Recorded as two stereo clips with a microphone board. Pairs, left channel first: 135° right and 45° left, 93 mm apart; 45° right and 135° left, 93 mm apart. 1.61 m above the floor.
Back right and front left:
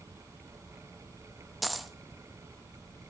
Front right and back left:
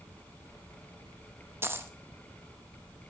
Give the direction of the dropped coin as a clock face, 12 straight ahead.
8 o'clock.